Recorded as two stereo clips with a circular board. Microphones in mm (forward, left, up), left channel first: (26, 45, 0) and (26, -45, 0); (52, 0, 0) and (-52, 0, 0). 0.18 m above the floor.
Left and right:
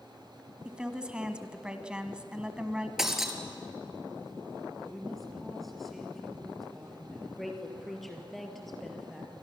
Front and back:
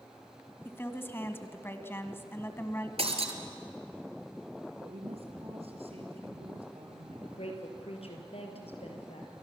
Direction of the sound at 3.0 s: 175° right.